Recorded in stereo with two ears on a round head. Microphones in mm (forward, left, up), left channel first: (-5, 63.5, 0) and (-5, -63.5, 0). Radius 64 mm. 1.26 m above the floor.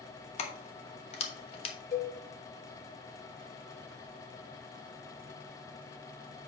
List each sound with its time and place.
0.4 s keys jangling: 45° left (ahead or behind), 1.1 m
1.9 s a cowbell: 60° left (ahead or behind), 1.7 m